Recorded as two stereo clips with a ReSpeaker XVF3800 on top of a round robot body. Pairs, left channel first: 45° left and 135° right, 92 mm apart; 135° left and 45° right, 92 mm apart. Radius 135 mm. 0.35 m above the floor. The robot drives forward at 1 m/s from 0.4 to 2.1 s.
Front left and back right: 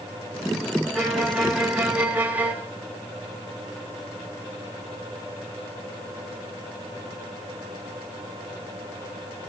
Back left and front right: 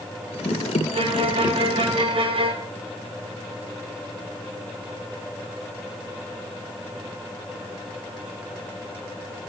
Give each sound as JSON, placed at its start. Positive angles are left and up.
{"t": 0.9, "sound": "a violin", "azimuth_deg": -40, "distance_m": 3.5}